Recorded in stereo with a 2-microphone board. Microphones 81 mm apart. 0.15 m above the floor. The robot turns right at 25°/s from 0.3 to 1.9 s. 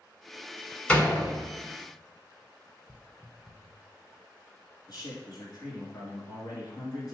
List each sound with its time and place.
0.9 s a door slam: 15° left (ahead or behind), 1.1 m; by 1.4 s 10° left (ahead or behind), 1.1 m
2.9 s footsteps: centre (ahead or behind), 0.8 m
4.9 s a man speaking: 50° left (ahead or behind), 2 m